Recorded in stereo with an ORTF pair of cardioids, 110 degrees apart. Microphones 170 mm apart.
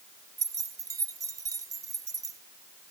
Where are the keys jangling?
20° right, 1.0 m.